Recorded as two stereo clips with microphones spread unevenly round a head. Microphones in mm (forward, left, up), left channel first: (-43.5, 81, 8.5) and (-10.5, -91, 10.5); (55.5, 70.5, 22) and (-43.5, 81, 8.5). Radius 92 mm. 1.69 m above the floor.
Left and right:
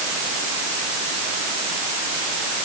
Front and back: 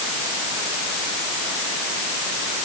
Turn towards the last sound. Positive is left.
No sound to turn to.